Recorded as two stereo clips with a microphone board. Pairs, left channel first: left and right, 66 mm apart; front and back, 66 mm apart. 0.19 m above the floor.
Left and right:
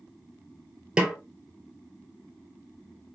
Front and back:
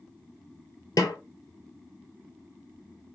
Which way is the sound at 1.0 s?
15° right.